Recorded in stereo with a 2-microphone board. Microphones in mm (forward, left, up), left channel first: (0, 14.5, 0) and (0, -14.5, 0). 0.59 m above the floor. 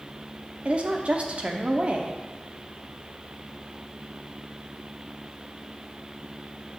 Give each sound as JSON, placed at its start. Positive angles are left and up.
{"t": 0.7, "sound": "a woman speaking", "side_deg": -45, "distance_m": 0.8}